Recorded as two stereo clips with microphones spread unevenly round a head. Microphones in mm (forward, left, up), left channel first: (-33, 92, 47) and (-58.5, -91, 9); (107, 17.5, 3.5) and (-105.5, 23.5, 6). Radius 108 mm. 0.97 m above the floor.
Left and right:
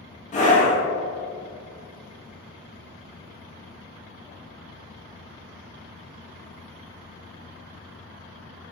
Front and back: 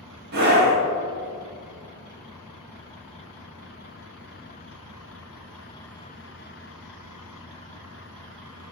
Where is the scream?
135° left, 1.4 m.